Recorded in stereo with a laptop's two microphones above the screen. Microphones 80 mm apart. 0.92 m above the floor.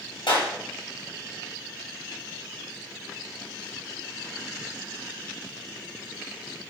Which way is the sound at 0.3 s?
90° left.